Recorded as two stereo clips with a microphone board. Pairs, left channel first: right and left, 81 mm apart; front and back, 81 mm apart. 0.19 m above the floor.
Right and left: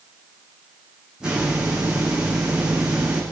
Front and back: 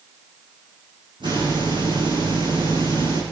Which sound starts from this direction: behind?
A hiss, at 1.2 s.